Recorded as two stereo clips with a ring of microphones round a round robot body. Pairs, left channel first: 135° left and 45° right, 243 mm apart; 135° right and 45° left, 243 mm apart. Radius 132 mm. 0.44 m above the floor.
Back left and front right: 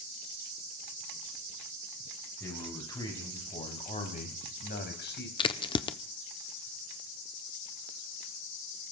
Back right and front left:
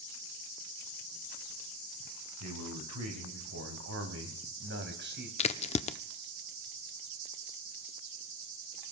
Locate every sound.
2.4 s a man speaking: 55° left, 5 m; by 5.3 s 90° left, 4 m
5.4 s a crack: 175° right, 0.7 m